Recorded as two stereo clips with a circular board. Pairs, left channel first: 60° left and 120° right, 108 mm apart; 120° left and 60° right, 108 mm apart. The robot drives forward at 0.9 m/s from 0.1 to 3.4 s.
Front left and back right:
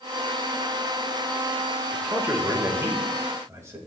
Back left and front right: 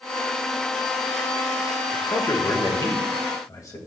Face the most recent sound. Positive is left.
turn(degrees=175)